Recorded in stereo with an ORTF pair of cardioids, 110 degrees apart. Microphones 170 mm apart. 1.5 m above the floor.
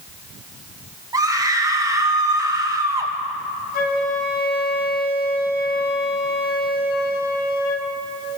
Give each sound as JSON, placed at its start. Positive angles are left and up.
{"t": 1.1, "sound": "a scream", "azimuth_deg": -20, "distance_m": 2.5}
{"t": 3.7, "sound": "a flute", "azimuth_deg": 65, "distance_m": 1.4}